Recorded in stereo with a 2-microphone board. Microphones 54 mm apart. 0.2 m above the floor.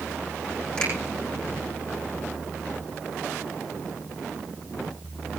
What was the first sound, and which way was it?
A finger snap, 20° left (ahead or behind).